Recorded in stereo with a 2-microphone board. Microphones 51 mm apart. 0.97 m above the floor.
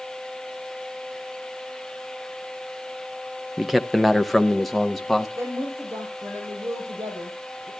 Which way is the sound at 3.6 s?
5° right (ahead or behind).